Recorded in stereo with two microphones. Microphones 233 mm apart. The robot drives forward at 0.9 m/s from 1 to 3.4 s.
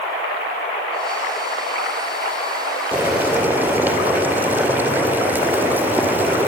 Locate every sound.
2.9 s boiling: 5° right (ahead or behind), 2.5 m; by 6.5 s 10° right (ahead or behind), 2 m